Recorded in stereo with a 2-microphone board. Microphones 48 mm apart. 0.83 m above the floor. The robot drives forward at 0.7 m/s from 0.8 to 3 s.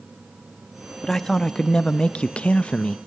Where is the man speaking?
10° left (ahead or behind), 1.2 m; by 3.0 s 20° left (ahead or behind), 0.6 m.